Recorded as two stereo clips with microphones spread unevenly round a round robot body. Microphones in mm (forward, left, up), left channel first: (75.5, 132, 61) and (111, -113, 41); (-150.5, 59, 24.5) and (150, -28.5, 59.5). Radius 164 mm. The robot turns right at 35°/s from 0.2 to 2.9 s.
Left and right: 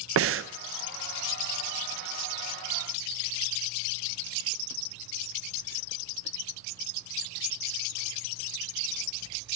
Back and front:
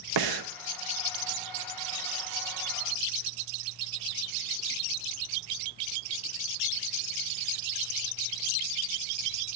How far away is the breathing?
About 0.6 m.